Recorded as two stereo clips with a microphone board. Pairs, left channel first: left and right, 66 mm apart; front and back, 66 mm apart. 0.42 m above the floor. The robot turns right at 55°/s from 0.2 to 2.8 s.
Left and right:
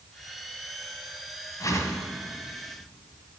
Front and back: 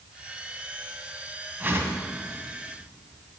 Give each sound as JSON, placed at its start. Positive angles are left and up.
{"t": 1.6, "sound": "a whoosh", "azimuth_deg": 120, "distance_m": 1.6}